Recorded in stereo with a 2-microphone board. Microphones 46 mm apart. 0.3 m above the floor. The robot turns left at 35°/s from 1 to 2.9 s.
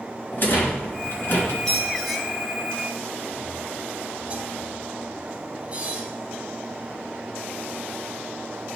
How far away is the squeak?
About 1.2 m.